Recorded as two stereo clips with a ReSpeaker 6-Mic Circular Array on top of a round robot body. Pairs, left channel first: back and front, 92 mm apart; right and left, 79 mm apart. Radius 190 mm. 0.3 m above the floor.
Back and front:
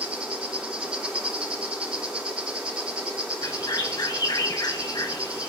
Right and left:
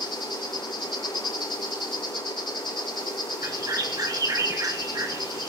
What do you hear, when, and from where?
0.0 s an insect: 80° right, 4.5 m
3.4 s a bird: 135° left, 1.5 m